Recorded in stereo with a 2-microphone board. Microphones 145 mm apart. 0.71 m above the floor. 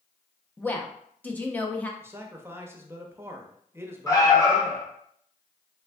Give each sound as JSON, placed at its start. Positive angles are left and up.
{"t": 0.6, "sound": "a woman speaking", "side_deg": 10, "distance_m": 0.6}
{"t": 2.0, "sound": "a man speaking", "side_deg": -15, "distance_m": 0.6}
{"t": 4.1, "sound": "an alarm", "side_deg": 25, "distance_m": 1.0}